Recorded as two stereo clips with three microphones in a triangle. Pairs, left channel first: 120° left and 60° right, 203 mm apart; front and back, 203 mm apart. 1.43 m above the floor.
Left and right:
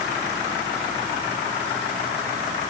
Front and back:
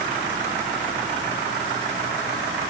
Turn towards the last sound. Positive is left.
No sound to turn to.